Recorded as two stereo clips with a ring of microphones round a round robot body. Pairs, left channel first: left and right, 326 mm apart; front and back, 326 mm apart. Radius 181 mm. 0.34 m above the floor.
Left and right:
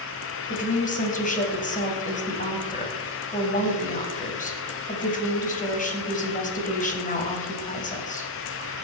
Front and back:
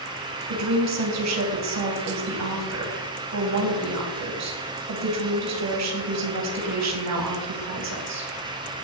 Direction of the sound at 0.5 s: 155° left.